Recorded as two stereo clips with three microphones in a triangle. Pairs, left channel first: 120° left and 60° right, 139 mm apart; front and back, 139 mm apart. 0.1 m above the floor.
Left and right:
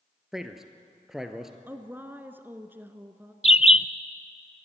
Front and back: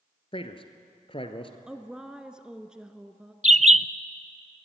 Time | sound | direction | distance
0.3 | a man speaking | 25° left | 1.5 m
1.7 | a woman speaking | 105° right | 1.1 m
3.4 | a bird | 155° left | 0.6 m